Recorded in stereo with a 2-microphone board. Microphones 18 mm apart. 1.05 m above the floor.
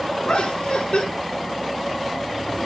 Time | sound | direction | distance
0.2 | laughter | 80° left | 3.5 m